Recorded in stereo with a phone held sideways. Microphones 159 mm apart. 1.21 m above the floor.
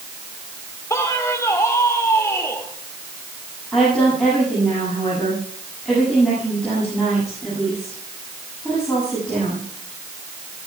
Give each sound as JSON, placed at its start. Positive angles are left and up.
{"t": 0.9, "sound": "a man speaking", "side_deg": 20, "distance_m": 2.5}
{"t": 3.7, "sound": "a woman speaking", "side_deg": 5, "distance_m": 8.0}